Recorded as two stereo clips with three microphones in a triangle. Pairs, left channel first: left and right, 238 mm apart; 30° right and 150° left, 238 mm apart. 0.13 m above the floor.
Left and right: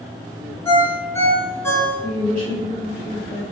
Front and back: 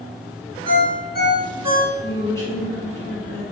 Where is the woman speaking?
95° right, 1.3 m.